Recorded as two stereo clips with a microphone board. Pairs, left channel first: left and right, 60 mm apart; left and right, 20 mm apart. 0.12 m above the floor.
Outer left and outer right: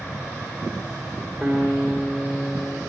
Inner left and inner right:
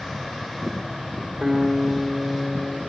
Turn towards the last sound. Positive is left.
turn(degrees=5)  # may be behind; listen again after turning